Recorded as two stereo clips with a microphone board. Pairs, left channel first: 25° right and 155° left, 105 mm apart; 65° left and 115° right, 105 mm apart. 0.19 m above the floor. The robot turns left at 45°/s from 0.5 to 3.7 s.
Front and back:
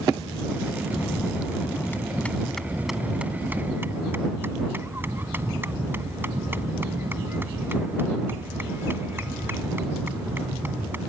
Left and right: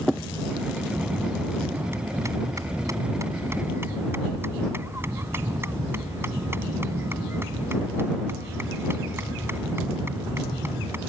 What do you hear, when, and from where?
0.9 s a bell: 30° right; by 11.0 s 155° right